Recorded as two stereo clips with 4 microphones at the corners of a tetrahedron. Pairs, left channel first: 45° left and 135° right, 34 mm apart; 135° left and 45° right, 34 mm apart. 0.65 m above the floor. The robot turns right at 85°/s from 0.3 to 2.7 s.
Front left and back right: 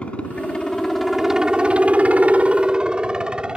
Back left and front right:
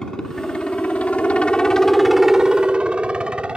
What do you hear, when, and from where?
0.0 s a helicopter: 70° left; by 3.6 s 90° right